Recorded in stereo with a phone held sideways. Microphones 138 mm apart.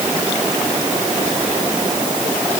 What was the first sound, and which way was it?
Only background noise.